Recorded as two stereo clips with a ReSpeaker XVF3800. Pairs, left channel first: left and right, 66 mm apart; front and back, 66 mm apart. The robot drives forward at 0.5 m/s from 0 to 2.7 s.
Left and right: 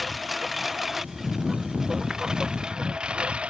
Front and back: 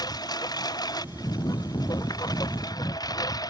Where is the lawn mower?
Straight ahead; by 3.5 s 15° right.